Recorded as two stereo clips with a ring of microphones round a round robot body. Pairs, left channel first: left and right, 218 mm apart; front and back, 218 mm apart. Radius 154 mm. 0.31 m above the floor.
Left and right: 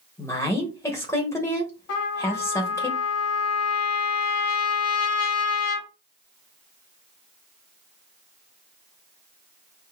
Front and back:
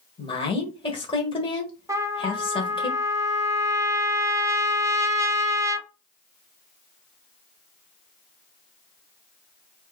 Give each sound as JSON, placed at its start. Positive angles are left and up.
{"t": 0.2, "sound": "a woman speaking", "azimuth_deg": 30, "distance_m": 1.3}
{"t": 1.9, "sound": "a trumpet", "azimuth_deg": 105, "distance_m": 1.2}